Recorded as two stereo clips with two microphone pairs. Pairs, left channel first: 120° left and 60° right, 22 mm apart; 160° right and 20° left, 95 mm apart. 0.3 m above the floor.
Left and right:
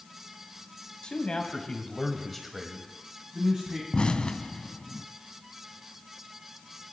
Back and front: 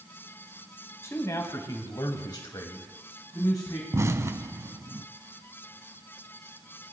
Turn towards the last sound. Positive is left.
turn(degrees=80)